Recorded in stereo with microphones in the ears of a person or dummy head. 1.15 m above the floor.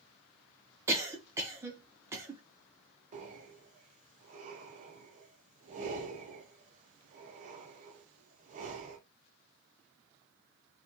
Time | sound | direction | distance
0.9 | a cough | 20° right (ahead or behind) | 0.5 m
3.1 | breathing | 40° right (ahead or behind) | 0.5 m